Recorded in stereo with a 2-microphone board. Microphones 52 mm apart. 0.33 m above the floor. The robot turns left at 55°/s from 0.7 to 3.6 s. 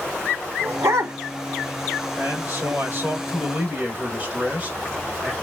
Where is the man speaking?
65° right, 1.5 m; by 5.3 s 145° right, 1.5 m.